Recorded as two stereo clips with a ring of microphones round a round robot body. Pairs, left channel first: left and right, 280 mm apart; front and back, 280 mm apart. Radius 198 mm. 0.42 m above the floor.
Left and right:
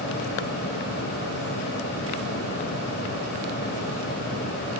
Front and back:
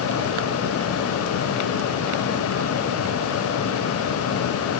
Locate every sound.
Only background noise.